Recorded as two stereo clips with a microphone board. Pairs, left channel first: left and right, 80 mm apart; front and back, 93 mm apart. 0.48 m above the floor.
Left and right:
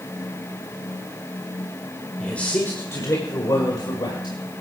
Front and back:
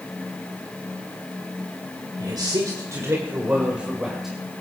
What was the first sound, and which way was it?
A man speaking, 165° left.